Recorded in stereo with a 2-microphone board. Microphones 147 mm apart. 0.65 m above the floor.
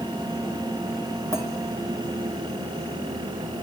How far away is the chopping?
I don't hear chopping.